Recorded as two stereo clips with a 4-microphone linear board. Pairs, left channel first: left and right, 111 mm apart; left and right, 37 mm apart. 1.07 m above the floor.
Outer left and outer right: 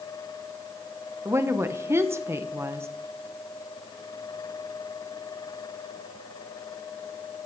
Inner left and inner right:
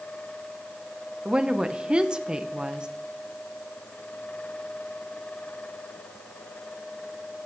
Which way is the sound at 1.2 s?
25° right (ahead or behind).